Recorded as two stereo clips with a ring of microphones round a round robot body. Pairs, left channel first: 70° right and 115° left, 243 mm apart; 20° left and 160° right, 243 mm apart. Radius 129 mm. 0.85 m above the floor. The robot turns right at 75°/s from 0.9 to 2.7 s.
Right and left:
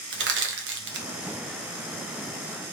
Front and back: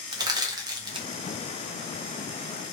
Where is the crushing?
135° left, 1.1 m; by 1.1 s 145° left, 1.1 m.